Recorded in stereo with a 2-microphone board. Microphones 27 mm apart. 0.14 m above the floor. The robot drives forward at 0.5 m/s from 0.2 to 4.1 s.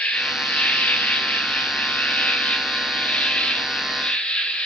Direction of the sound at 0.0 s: 65° left (ahead or behind).